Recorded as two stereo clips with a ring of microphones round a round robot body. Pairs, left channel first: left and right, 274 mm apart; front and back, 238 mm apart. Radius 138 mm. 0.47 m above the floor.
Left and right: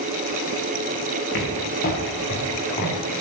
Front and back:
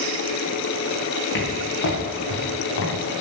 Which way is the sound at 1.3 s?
35° left.